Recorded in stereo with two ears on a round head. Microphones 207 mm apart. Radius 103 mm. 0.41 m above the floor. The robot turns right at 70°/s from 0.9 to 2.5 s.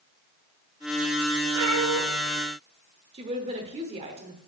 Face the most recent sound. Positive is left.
turn(degrees=-30)  # may be behind; listen again after turning